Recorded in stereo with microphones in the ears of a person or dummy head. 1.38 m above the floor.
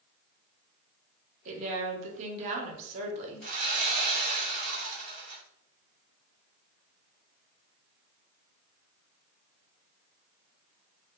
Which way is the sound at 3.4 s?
45° right (ahead or behind).